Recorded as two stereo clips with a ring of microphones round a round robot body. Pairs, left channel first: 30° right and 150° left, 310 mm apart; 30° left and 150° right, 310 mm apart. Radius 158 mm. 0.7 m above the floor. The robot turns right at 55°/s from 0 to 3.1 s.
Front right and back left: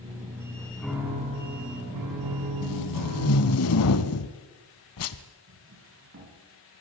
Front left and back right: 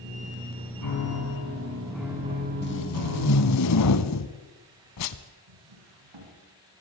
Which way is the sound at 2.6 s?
20° right.